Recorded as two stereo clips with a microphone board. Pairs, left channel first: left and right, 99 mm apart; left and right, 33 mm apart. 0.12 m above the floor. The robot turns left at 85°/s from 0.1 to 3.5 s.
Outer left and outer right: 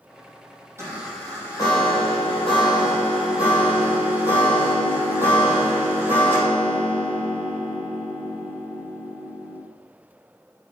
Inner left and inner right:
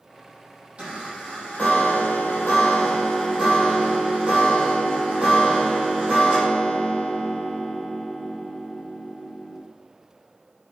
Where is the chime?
150° right, 4.5 m; by 9.6 s 20° right, 4.5 m.